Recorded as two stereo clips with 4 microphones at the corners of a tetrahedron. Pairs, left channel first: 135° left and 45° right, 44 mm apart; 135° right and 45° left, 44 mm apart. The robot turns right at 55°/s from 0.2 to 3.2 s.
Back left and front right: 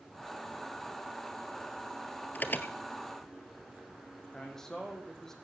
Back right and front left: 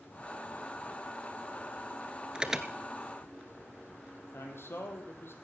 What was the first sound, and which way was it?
An alarm, 105° left.